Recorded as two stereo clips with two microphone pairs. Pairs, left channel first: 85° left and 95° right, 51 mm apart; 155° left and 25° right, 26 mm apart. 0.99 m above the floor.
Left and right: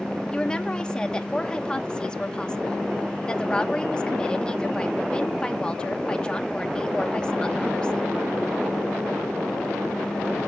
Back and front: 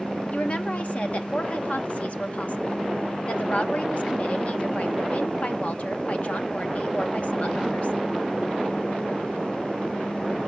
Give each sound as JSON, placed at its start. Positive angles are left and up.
{"t": 0.3, "sound": "a woman speaking", "azimuth_deg": 150, "distance_m": 1.1}